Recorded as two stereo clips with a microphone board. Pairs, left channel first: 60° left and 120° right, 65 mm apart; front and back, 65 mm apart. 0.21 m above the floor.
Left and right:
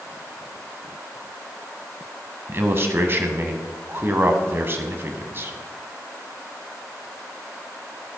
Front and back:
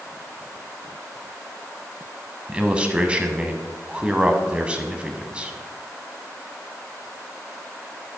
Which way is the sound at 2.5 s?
120° right.